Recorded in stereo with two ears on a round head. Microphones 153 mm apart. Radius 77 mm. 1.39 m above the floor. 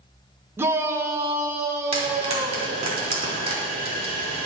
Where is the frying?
40° right (ahead or behind), 4 m.